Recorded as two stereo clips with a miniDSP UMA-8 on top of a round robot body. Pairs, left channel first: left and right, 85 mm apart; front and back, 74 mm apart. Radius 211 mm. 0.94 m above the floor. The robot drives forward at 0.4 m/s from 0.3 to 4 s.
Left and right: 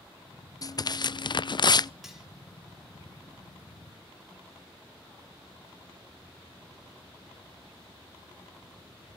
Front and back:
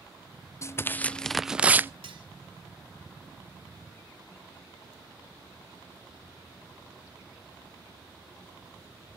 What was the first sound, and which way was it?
Tearing paper, 50° left.